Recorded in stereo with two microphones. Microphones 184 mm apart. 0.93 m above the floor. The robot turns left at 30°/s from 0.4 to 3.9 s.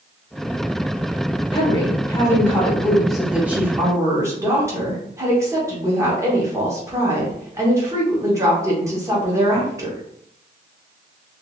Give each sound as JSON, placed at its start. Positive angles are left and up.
{"t": 1.5, "sound": "a woman speaking", "azimuth_deg": 45, "distance_m": 1.1}